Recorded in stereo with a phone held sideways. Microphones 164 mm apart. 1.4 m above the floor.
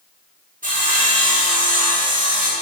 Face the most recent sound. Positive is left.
turn(degrees=-55)  # may be behind; listen again after turning